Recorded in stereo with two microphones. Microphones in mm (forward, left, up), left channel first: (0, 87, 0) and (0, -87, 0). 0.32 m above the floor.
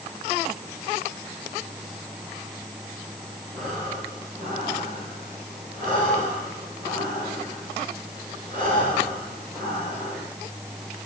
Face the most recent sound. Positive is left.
turn(degrees=-50)  # may be behind; listen again after turning